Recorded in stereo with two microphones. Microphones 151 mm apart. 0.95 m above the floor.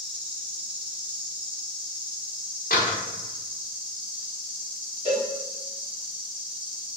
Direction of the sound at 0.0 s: 35° right (ahead or behind).